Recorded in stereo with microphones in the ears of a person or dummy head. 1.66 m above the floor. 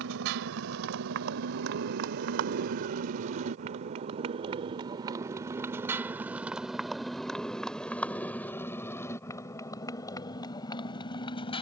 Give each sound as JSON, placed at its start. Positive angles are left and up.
{"t": 0.0, "sound": "a motorcycle", "side_deg": -70}